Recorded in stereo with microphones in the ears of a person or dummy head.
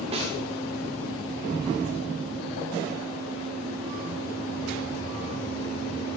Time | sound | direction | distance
0.1 | a snare drum | 30° right (ahead or behind) | 1.6 m